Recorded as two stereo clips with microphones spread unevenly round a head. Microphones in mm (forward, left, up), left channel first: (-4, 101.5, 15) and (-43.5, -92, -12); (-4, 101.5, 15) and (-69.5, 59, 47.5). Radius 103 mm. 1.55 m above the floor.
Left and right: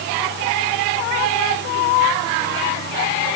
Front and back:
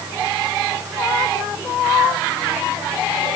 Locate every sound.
Only background noise.